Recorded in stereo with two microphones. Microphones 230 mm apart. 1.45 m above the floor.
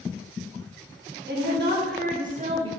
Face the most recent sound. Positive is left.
turn(degrees=-20)  # may be behind; listen again after turning